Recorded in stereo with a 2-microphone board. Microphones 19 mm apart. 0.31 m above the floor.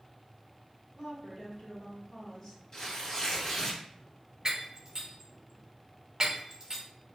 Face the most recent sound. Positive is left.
turn(degrees=-35)  # may be behind; listen again after turning